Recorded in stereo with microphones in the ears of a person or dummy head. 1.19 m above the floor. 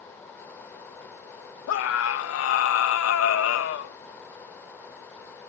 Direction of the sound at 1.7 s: 75° left (ahead or behind).